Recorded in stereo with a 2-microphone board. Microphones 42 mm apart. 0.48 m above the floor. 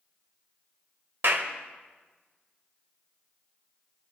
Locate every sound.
1.2 s a clap: 65° right (ahead or behind), 1.6 m